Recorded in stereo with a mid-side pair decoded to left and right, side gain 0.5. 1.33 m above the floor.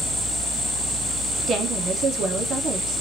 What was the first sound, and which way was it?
A woman speaking, 55° right.